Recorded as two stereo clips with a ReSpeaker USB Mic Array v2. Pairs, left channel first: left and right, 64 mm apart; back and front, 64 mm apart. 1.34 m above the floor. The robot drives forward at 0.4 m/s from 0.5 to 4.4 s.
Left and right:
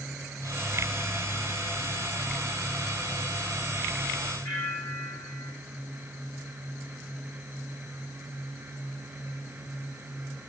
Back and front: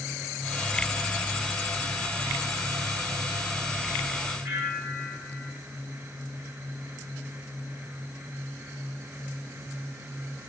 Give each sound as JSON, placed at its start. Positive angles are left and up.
{"t": 4.5, "sound": "a bell", "azimuth_deg": 85, "distance_m": 9.0}